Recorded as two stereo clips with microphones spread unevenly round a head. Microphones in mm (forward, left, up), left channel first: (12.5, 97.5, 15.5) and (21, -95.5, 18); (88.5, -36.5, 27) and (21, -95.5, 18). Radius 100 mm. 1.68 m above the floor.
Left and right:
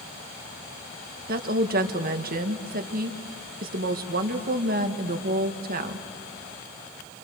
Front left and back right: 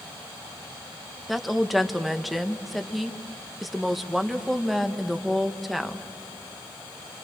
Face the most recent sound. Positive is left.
turn(degrees=-50)